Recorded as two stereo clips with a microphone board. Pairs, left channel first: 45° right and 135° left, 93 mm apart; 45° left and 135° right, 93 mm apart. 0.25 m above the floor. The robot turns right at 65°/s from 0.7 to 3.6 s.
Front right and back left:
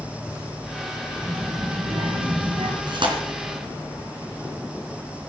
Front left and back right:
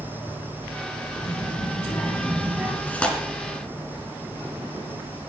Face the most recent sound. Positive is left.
turn(degrees=160)